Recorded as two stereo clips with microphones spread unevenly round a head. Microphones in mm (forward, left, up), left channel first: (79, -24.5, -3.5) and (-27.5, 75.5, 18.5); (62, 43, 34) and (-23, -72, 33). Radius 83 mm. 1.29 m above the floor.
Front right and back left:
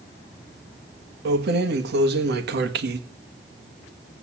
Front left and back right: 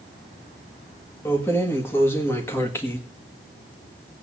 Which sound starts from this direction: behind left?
Keys jangling, at 1.2 s.